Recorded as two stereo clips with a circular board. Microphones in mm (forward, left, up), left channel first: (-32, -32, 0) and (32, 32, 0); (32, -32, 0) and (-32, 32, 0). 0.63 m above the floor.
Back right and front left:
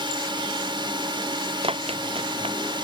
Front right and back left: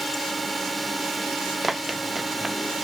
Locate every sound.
0.0 s a drone: 45° left
1.6 s running footsteps: 45° left